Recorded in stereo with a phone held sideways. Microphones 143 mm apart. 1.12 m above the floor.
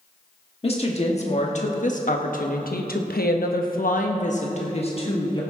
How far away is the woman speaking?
About 1.8 m.